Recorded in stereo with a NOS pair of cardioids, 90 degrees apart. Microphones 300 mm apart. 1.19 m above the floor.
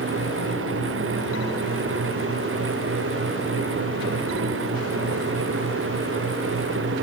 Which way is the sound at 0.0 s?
45° right.